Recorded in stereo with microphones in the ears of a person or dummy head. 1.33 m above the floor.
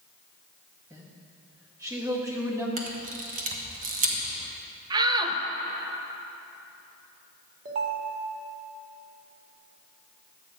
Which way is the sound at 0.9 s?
15° right (ahead or behind).